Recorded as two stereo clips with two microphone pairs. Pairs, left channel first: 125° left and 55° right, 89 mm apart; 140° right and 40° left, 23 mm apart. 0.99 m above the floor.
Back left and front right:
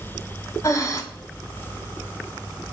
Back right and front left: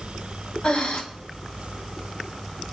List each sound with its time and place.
0.6 s breathing: straight behind, 1.6 m